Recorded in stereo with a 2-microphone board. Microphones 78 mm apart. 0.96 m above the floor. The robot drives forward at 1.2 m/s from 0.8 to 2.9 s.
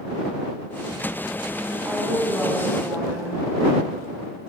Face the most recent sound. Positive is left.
turn(degrees=-30)  # may be behind; listen again after turning